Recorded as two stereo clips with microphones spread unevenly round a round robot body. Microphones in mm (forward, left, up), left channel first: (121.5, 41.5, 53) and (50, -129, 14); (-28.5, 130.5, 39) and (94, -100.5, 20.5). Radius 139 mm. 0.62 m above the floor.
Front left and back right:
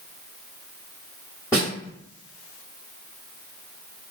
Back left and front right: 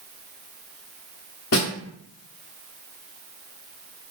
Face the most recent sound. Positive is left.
turn(degrees=150)